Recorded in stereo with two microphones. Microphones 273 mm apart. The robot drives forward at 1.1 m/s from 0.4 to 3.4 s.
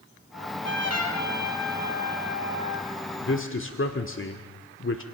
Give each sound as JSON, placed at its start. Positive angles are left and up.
{"t": 0.3, "sound": "a trumpet", "side_deg": 60, "distance_m": 3.5}
{"t": 3.2, "sound": "a man speaking", "side_deg": 45, "distance_m": 1.6}